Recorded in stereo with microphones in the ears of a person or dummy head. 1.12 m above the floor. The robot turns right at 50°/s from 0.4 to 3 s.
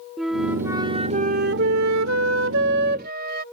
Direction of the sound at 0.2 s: 175° right.